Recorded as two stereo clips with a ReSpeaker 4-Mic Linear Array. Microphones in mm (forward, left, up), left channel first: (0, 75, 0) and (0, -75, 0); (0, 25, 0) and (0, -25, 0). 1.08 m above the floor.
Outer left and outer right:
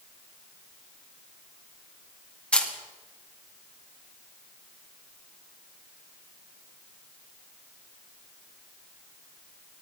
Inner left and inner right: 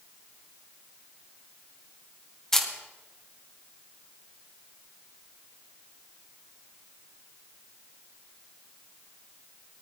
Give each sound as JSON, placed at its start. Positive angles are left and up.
{"t": 2.5, "sound": "a camera shutter", "side_deg": 10, "distance_m": 2.0}